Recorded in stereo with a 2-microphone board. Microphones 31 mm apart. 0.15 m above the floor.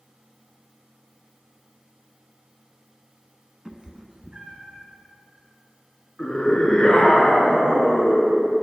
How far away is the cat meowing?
About 0.6 m.